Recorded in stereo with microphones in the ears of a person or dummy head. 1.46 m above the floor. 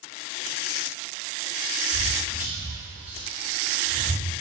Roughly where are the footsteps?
Left.